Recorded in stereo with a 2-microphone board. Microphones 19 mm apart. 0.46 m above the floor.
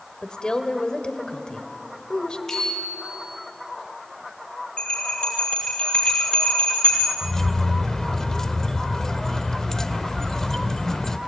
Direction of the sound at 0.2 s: 55° left (ahead or behind).